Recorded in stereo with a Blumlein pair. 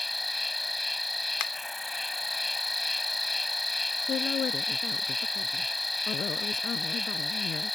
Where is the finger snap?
40° left.